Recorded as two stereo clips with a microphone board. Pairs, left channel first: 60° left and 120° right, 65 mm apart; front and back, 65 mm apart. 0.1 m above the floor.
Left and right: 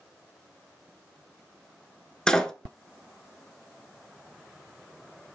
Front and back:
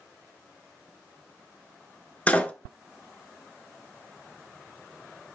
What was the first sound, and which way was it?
A door slam, 5° right.